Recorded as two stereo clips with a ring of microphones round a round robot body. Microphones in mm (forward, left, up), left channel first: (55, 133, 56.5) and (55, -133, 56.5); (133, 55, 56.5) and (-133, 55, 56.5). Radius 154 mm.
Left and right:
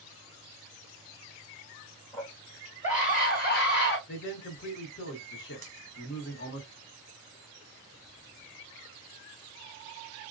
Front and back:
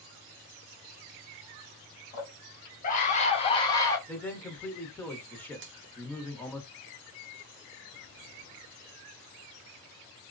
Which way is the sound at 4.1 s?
80° left.